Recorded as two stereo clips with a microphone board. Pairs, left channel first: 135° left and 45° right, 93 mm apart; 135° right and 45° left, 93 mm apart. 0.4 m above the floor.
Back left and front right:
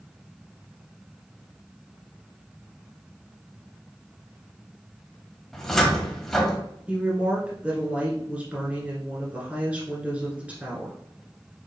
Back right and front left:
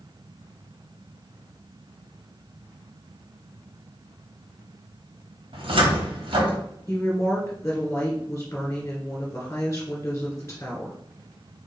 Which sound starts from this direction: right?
A woman speaking, at 6.9 s.